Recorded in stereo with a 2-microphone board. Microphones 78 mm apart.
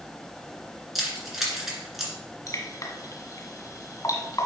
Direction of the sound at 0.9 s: 5° right (ahead or behind).